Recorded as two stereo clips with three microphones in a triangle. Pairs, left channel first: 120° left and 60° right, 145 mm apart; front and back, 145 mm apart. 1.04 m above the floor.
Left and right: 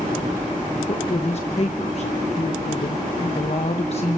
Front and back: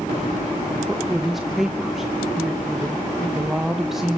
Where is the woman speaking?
95° left, 1.0 m.